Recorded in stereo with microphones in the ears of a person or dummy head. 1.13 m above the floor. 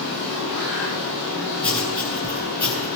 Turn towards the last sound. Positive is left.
turn(degrees=25)  # may be behind; listen again after turning